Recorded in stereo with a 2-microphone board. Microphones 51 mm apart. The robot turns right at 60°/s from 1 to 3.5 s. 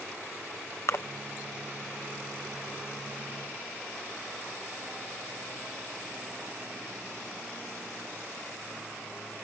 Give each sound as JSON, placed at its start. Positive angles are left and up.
{"t": 0.9, "sound": "a splash", "side_deg": 55}